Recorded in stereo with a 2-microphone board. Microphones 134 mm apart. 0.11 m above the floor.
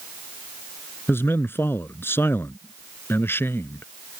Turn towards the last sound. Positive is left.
turn(degrees=15)  # may be behind; listen again after turning